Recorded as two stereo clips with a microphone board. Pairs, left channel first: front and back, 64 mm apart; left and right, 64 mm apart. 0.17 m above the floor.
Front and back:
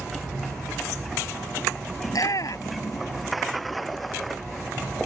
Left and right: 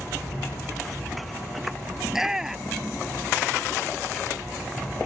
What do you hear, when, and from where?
2.0 s a shout: 10° right